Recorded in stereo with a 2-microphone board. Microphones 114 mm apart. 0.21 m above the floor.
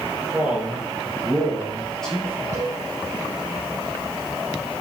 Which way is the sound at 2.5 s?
85° left.